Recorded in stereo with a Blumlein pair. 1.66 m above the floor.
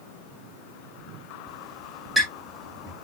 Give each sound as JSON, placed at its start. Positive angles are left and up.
{"t": 1.5, "sound": "a squeak", "azimuth_deg": -5, "distance_m": 7.5}